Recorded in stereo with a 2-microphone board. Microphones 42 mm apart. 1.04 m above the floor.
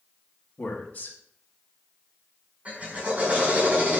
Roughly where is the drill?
Right.